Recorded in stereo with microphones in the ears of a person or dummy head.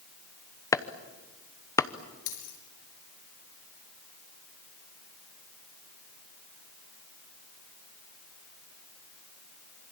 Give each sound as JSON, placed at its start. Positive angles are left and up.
{"t": 0.7, "sound": "chopping", "side_deg": 20, "distance_m": 0.9}
{"t": 2.3, "sound": "a dropped coin", "side_deg": 70, "distance_m": 5.0}